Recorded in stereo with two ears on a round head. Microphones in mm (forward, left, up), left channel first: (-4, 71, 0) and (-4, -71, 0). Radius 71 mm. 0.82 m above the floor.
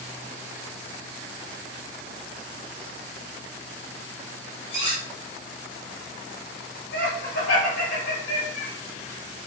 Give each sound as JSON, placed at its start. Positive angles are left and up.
{"t": 4.7, "sound": "cutlery clinking", "side_deg": 35, "distance_m": 1.3}
{"t": 6.9, "sound": "laughter", "side_deg": 65, "distance_m": 1.6}